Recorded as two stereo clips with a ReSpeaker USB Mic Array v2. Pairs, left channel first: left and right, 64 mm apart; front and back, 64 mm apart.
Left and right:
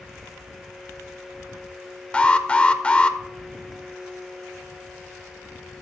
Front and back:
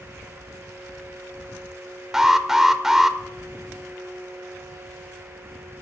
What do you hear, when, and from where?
2.1 s an alarm: 110° left, 0.6 m